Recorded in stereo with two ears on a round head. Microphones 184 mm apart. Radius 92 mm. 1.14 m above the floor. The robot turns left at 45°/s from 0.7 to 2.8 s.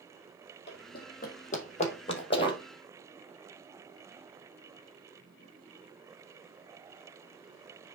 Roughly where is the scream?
No scream in this recording.